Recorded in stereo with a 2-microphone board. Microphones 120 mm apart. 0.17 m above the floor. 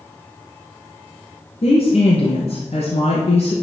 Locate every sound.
1.6 s a woman speaking: 65° left (ahead or behind), 2.5 m